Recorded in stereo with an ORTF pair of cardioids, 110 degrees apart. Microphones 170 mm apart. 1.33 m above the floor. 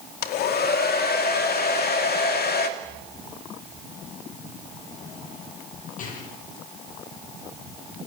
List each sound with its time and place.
0.2 s a hair dryer: 65° left, 2.5 m
2.8 s a rattle: 50° left, 9.5 m